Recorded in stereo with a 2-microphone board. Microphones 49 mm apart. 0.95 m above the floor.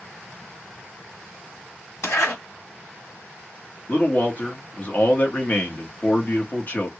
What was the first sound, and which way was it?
A zipper, 70° left (ahead or behind).